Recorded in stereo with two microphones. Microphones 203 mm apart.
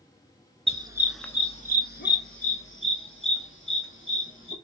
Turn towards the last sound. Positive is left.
turn(degrees=80)